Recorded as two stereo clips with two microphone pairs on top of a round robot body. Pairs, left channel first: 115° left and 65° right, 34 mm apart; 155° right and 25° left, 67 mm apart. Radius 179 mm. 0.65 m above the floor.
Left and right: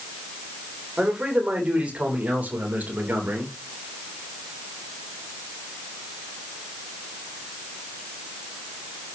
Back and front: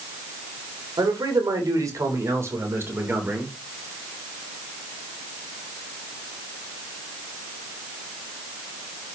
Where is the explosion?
I don't hear an explosion.